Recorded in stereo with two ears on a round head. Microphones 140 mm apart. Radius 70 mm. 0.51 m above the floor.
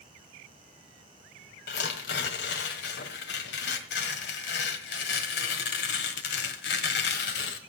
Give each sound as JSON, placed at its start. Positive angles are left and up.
{"t": 1.7, "sound": "tearing paper", "side_deg": 75, "distance_m": 1.9}